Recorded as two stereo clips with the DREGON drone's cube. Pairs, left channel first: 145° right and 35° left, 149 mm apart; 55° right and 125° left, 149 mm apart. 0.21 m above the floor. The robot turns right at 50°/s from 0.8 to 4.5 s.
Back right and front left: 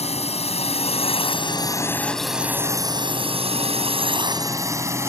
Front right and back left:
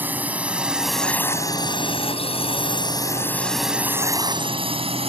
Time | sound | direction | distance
0.0 | a drone | 160° right | ?